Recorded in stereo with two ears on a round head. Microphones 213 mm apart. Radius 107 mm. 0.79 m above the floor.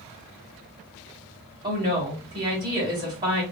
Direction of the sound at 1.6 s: 20° right (ahead or behind).